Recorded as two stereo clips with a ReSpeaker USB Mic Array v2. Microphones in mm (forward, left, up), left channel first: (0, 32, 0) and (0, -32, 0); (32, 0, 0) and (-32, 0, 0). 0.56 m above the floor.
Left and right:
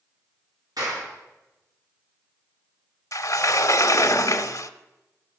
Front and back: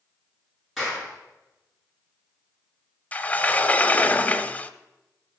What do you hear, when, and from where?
0.8 s a clap: 95° right, 7 m
3.1 s a sliding door: 60° left, 0.5 m